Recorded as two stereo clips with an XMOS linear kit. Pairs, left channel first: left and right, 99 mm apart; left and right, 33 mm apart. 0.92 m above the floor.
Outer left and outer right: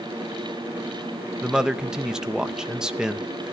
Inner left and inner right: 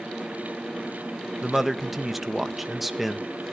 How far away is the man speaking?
About 0.6 m.